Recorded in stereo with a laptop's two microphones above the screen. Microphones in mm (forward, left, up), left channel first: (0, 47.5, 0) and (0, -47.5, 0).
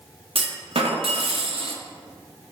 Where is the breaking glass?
No breaking glass in this recording.